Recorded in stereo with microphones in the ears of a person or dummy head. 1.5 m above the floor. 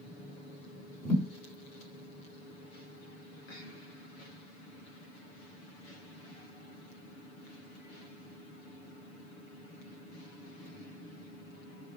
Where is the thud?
5° left (ahead or behind), 2.5 m.